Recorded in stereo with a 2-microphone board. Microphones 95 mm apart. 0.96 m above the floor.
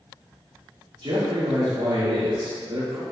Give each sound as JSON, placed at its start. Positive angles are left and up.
{"t": 1.0, "sound": "a man speaking", "side_deg": -65, "distance_m": 2.0}